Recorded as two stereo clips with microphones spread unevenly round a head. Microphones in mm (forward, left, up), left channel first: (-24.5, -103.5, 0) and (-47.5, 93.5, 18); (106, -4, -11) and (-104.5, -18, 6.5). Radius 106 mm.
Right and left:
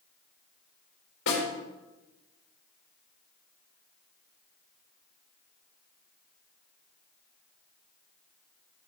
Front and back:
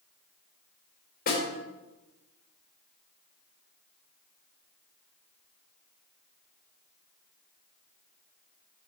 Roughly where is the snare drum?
Ahead right.